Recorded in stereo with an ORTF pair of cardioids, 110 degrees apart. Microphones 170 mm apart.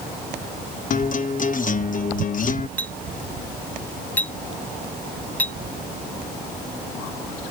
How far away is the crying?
I don't hear crying.